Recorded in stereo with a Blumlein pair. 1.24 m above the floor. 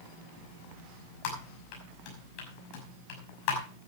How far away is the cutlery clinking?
No cutlery clinking in this recording.